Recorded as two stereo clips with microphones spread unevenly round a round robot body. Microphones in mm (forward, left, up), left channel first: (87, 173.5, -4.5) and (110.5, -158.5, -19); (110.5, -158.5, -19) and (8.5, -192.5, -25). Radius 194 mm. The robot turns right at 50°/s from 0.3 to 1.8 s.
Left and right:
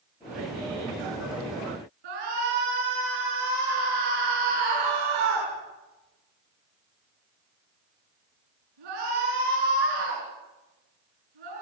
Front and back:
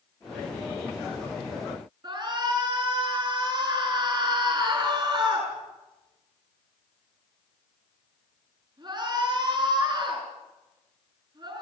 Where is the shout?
115° right, 8 m.